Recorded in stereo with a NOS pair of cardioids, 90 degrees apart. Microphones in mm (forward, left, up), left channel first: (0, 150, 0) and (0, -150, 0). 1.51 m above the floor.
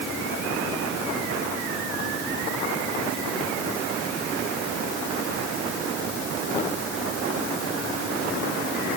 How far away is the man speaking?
I don't hear a man speaking.